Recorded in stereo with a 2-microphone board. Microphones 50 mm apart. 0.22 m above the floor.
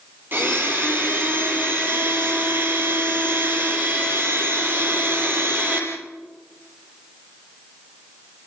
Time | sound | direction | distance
0.3 | a blender | 40° right (ahead or behind) | 6 m